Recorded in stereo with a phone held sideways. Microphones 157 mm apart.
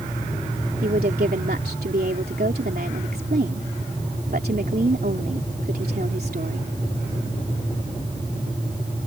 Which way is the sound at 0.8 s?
80° right.